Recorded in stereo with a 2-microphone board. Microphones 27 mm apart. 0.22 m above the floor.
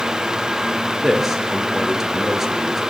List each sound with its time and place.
1.0 s a man speaking: 15° right (ahead or behind), 4 m